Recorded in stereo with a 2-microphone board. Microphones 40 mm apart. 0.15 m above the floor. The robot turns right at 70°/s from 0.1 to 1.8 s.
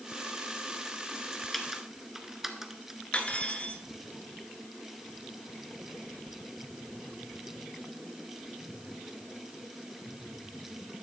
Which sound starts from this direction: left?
Cutlery clinking, at 3.1 s.